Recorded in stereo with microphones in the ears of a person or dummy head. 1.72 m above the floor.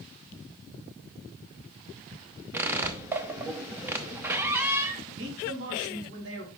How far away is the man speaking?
About 3.5 m.